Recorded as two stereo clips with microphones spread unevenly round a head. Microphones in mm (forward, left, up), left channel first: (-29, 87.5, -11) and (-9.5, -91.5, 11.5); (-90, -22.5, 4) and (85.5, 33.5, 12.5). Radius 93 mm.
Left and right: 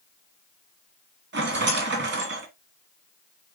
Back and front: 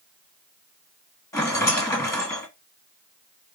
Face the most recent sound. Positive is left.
turn(degrees=-90)